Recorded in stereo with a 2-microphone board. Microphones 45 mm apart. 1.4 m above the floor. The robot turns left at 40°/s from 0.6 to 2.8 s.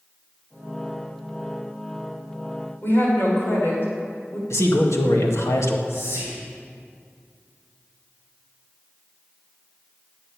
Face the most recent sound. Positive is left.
turn(degrees=65)  # may be behind; listen again after turning